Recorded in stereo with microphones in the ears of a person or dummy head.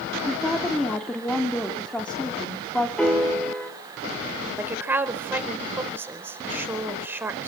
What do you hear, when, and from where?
0.2 s a woman speaking: centre (ahead or behind), 3.5 m
3.0 s a piano: 10° left (ahead or behind), 4 m
4.6 s a woman speaking: 15° right (ahead or behind), 4.5 m